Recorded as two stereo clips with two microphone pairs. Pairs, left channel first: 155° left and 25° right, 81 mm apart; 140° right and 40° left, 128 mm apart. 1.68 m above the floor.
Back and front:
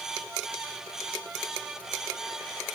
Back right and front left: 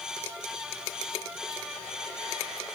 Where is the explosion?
No explosion in this recording.